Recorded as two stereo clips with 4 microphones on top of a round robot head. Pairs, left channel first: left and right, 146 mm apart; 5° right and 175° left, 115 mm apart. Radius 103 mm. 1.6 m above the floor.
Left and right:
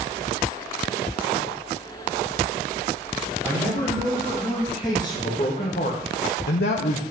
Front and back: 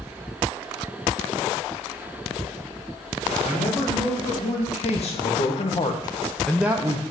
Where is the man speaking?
10° left, 4 m; by 7.0 s 130° left, 0.9 m.